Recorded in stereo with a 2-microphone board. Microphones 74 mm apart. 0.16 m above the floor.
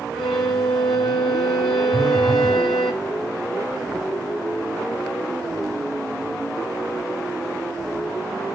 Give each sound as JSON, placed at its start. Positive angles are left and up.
{"t": 0.1, "sound": "a violin", "side_deg": 5, "distance_m": 1.7}
{"t": 1.9, "sound": "a phone buzzing", "side_deg": 5, "distance_m": 3.5}